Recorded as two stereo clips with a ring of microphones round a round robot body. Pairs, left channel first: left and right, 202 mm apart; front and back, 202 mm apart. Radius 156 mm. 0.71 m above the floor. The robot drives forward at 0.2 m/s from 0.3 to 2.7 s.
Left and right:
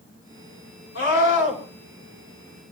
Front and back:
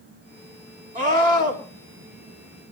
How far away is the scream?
About 5.5 m.